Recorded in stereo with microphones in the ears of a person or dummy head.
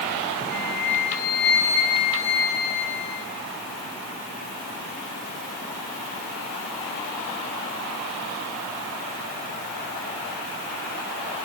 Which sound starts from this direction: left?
A flute, at 0.5 s.